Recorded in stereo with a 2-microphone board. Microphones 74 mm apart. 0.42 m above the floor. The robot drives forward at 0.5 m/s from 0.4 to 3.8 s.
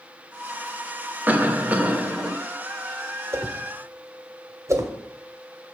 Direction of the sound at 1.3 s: 20° right (ahead or behind).